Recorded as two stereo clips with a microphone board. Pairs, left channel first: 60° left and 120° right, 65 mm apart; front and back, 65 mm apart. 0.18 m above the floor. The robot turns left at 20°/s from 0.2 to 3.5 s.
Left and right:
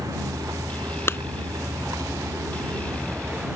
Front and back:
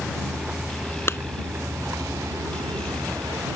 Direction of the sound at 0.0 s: 95° right.